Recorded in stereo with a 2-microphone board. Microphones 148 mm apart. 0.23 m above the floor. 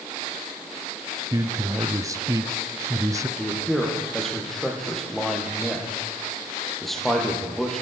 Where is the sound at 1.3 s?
25° right (ahead or behind), 1.0 m.